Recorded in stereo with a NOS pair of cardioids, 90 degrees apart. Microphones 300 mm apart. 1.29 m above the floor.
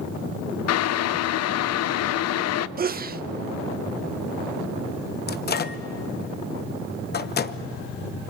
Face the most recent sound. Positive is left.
turn(degrees=35)